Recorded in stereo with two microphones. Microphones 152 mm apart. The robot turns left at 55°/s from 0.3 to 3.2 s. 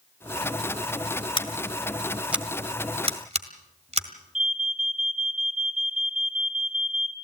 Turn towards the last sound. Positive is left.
turn(degrees=-60)  # may be behind; listen again after turning